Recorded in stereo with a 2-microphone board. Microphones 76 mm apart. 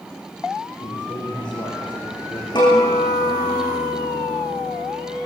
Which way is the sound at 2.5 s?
75° left (ahead or behind).